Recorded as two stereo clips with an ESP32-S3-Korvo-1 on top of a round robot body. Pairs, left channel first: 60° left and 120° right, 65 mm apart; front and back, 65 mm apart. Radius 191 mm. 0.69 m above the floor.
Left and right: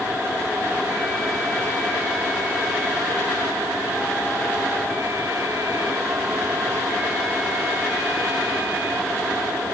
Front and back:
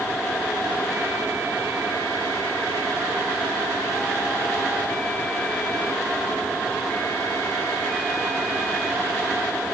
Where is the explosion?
I don't hear an explosion.